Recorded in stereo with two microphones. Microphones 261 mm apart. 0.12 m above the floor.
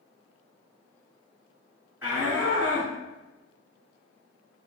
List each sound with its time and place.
2.0 s a shout: 5° right (ahead or behind), 1.2 m